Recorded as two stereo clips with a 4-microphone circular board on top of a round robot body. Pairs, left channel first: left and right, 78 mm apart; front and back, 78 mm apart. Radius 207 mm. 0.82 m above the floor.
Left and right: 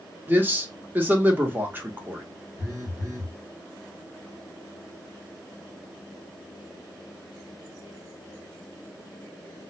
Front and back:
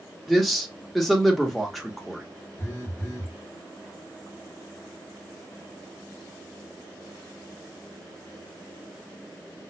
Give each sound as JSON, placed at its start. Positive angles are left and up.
{"t": 0.3, "sound": "a man speaking", "azimuth_deg": -90, "distance_m": 1.0}
{"t": 2.6, "sound": "a phone buzzing", "azimuth_deg": -55, "distance_m": 1.4}